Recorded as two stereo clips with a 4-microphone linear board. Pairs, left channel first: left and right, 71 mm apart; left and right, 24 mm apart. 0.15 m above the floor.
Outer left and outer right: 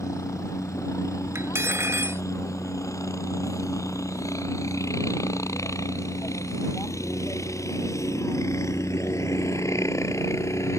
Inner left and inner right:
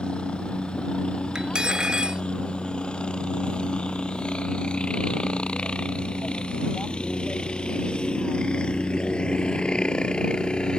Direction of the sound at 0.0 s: 45° left (ahead or behind).